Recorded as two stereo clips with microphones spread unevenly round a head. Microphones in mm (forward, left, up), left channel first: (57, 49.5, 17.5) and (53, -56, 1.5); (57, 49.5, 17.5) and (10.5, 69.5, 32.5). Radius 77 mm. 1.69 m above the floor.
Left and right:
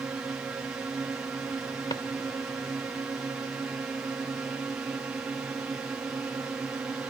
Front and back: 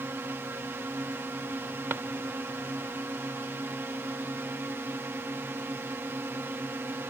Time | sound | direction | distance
0.0 | a drone | 165° right | ?
1.9 | a drawer | 140° left | ?